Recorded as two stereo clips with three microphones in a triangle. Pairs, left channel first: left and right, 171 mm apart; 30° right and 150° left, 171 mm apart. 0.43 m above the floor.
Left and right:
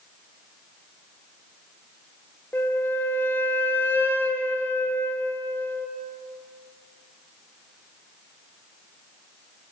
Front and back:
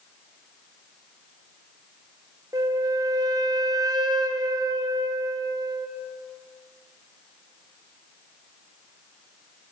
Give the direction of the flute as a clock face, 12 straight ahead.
7 o'clock.